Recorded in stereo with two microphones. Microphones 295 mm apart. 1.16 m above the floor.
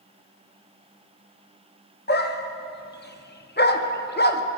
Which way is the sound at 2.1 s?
35° left (ahead or behind).